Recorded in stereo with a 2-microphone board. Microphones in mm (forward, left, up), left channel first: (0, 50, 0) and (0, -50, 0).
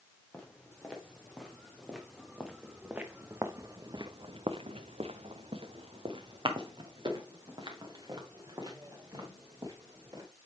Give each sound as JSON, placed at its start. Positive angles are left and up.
{"t": 0.3, "sound": "footsteps", "side_deg": 10, "distance_m": 2.5}